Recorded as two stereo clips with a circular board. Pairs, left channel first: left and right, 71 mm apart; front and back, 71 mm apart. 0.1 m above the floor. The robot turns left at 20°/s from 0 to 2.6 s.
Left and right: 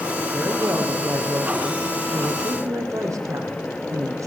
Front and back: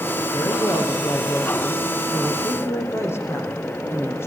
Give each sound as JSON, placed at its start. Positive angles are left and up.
{"t": 0.3, "sound": "a woman speaking", "azimuth_deg": -5, "distance_m": 5.0}